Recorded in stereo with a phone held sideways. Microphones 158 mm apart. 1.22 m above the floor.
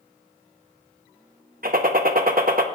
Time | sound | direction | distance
1.6 | a gunshot | 65° right (ahead or behind) | 0.8 m